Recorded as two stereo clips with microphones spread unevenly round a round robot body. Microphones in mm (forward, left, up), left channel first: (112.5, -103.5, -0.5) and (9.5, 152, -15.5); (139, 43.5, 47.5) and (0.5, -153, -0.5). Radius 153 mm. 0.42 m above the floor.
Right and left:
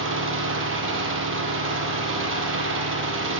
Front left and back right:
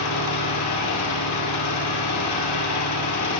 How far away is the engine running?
About 6.5 m.